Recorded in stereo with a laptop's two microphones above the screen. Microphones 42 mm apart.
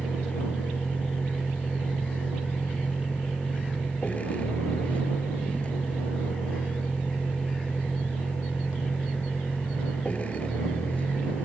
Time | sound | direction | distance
0.0 | a vehicle | 30° left (ahead or behind) | ?